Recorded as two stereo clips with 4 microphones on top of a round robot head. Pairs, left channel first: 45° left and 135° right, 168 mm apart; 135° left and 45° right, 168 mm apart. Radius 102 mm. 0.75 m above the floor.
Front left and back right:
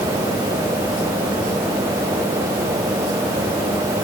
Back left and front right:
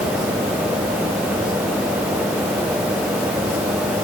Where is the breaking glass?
No breaking glass in this recording.